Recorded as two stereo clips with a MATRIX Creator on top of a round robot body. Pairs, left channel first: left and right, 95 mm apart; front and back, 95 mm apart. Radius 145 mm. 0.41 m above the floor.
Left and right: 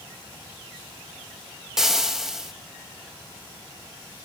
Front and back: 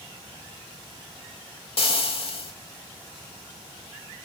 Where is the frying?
5° right, 3 m.